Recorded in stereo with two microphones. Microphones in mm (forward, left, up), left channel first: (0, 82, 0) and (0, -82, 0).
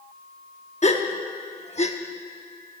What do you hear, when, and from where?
0.8 s a gasp: 45° left (ahead or behind), 0.9 m